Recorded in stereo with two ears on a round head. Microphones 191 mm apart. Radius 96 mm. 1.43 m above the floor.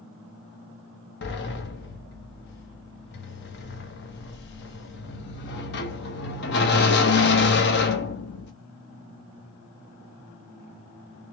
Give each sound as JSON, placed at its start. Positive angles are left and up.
{"t": 1.2, "sound": "a sliding door", "side_deg": 55, "distance_m": 0.9}